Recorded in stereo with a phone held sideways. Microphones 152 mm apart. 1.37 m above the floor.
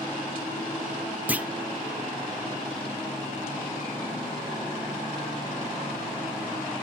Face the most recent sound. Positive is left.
turn(degrees=-10)  # may be behind; listen again after turning